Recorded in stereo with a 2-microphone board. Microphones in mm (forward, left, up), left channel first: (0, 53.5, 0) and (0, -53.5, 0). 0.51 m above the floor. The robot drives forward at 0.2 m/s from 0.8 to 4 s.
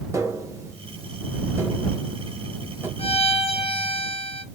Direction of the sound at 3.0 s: 70° left (ahead or behind).